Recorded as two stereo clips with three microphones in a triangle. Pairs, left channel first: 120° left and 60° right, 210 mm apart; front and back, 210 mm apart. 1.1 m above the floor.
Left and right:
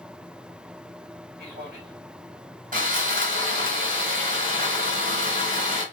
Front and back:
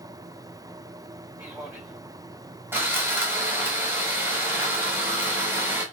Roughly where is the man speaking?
Right.